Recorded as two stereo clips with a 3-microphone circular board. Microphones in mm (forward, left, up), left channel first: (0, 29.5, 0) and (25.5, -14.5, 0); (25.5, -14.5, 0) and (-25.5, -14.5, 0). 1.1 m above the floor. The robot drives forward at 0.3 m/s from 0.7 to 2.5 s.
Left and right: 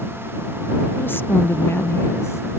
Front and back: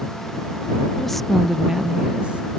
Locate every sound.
1.0 s a woman speaking: 80° left; by 2.6 s 125° left